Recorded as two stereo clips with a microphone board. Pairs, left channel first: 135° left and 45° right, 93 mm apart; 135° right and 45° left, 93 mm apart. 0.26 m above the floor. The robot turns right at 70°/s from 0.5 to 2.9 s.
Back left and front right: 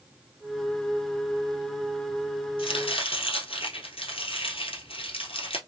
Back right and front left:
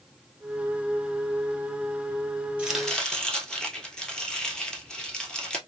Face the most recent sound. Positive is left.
turn(degrees=140)